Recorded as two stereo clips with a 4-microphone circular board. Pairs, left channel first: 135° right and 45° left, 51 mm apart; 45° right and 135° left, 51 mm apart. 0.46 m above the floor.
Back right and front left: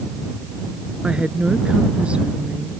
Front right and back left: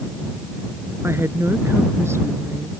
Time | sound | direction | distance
1.0 | a woman speaking | 110° left | ?